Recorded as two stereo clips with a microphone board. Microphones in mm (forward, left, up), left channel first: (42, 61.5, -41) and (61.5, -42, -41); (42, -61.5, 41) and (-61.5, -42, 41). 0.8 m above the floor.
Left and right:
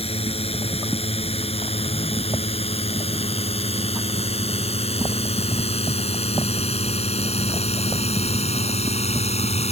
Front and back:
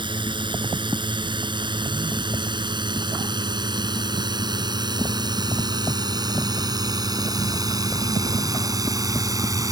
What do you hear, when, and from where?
0.0 s a drone: 125° left; by 9.7 s 110° left